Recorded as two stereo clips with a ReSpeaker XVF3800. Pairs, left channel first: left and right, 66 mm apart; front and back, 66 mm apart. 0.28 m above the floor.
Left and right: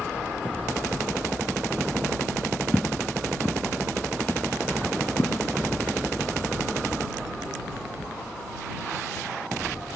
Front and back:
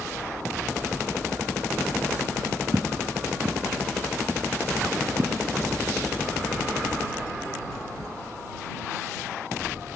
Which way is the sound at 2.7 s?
160° left.